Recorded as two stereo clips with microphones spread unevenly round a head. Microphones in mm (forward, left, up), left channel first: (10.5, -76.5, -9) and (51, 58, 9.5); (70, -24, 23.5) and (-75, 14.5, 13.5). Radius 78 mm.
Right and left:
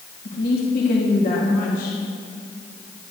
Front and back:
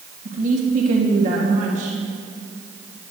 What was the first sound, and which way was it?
A woman speaking, 150° right.